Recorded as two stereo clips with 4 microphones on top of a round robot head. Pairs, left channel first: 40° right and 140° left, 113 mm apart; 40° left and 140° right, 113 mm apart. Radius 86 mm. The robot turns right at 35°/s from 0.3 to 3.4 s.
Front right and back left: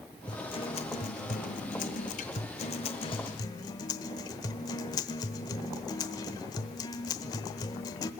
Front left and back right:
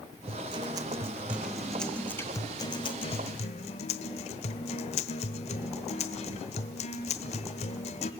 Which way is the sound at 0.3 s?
95° right.